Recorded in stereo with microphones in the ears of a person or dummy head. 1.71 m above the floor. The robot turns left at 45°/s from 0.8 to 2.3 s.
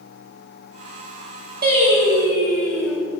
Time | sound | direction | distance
1.6 | singing | 135° right | 4 m